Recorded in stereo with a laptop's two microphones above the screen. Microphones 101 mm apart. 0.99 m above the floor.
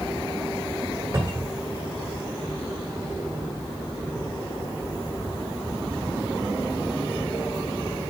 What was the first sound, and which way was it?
A cupboard door, 40° right (ahead or behind).